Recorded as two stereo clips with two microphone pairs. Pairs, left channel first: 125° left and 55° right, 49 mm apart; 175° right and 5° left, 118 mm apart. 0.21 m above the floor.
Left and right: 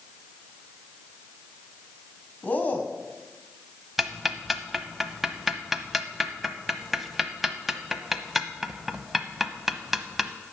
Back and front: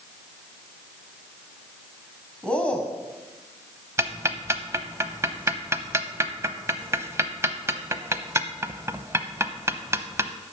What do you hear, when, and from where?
2.4 s a man speaking: 115° left, 1.4 m
4.0 s ticking: 20° left, 0.8 m